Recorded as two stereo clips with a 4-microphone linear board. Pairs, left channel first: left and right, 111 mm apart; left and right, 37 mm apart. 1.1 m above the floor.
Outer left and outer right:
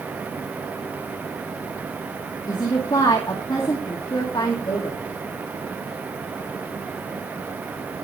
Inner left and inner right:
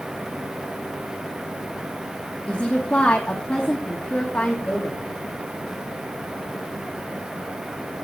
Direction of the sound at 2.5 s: 40° left (ahead or behind).